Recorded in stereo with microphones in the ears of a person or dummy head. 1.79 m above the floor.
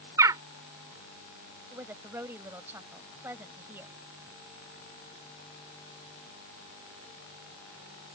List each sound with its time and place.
0.2 s a bird: 15° right (ahead or behind)
1.7 s a woman speaking: 15° right (ahead or behind)